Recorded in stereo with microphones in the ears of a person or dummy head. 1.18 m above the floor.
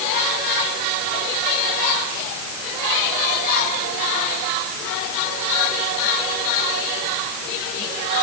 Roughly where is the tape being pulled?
No tape being pulled in this recording.